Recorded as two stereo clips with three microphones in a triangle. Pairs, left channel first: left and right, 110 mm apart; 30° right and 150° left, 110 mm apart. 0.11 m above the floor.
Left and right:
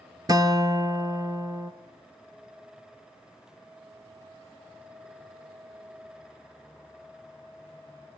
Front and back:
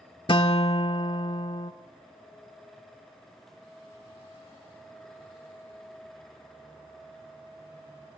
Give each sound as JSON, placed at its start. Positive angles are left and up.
{"t": 0.3, "sound": "a guitar", "azimuth_deg": -45, "distance_m": 1.0}